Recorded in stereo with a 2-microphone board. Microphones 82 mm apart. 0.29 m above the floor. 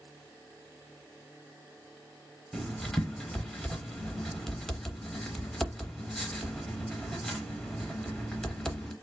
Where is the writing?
5° left (ahead or behind), 0.7 m.